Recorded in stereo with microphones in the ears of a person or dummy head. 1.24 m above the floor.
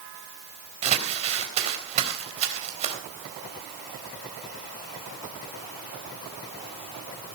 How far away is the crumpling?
About 3.5 m.